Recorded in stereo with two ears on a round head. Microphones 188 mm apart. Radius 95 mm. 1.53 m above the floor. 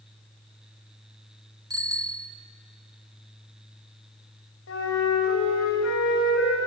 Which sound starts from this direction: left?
A flute, at 4.7 s.